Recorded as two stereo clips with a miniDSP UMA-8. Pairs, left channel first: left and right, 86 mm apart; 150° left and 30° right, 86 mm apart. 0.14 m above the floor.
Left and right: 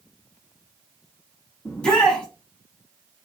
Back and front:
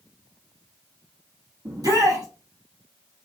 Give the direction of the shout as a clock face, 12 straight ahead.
12 o'clock.